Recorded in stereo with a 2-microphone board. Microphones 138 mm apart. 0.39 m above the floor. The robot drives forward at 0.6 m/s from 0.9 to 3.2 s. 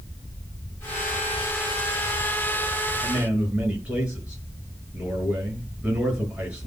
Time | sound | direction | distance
3.0 | a man speaking | 10° right (ahead or behind) | 5.5 m